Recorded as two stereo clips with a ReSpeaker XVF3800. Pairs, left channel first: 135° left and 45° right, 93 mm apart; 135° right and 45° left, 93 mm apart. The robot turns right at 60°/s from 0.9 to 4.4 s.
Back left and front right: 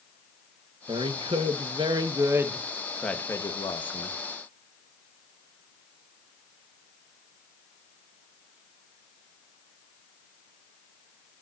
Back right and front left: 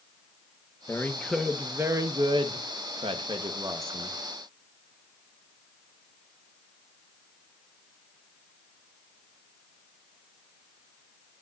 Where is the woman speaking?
70° right, 1.5 m; by 4.2 s 125° left, 1.5 m.